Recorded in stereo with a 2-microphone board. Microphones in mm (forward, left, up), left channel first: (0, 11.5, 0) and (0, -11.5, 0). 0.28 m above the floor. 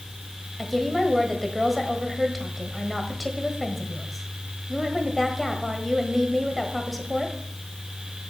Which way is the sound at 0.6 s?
5° right (ahead or behind).